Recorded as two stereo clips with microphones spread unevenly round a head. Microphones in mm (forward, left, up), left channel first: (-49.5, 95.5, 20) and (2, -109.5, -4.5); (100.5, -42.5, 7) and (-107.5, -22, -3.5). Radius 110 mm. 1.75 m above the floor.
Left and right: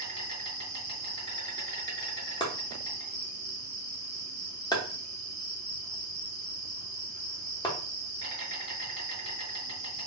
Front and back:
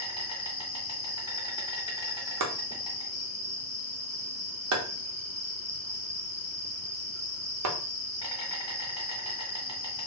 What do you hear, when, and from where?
0.0 s an insect: 35° right, 1.7 m
2.4 s chopping: 170° left, 0.7 m